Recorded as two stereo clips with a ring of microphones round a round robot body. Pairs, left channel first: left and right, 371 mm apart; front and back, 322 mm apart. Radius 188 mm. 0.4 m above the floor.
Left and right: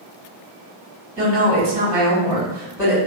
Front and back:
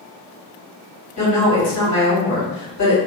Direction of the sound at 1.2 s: 10° right.